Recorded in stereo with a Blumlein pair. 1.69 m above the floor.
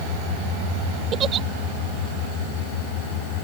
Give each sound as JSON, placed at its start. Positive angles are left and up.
{"t": 1.1, "sound": "a giggle", "azimuth_deg": -25}